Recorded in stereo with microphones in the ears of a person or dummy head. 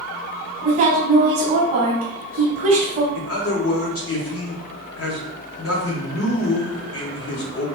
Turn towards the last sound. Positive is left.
turn(degrees=65)  # may be behind; listen again after turning